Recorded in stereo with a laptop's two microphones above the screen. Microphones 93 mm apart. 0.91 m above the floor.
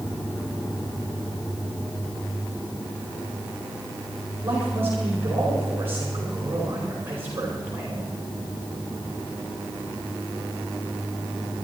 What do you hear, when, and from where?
4.4 s a man speaking: 25° right (ahead or behind), 5 m